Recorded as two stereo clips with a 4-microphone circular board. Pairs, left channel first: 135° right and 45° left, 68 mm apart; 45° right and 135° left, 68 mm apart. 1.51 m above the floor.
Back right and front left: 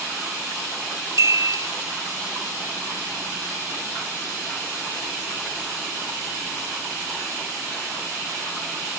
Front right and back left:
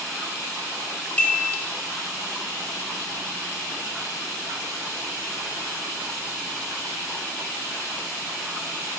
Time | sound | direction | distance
1.2 | a chime | 20° left | 1.6 m